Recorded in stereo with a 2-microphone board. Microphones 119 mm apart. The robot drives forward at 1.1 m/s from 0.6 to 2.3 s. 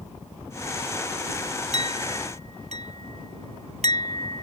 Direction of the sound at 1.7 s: 80° right.